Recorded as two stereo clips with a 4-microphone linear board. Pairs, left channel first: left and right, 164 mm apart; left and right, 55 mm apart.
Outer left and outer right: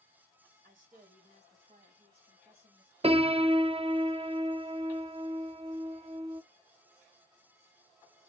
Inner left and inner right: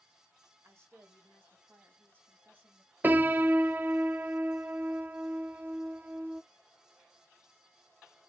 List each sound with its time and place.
0.6 s a woman speaking: 50° right (ahead or behind), 3 m; by 2.9 s 30° right (ahead or behind), 4.5 m
3.0 s a piano: 35° right (ahead or behind), 0.5 m